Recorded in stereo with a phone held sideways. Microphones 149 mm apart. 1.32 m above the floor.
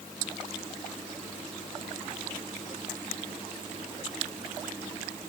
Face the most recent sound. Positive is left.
No sound to turn to.